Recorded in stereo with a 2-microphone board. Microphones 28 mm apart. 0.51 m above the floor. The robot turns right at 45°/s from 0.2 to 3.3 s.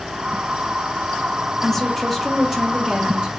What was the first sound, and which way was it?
A woman speaking, 155° left.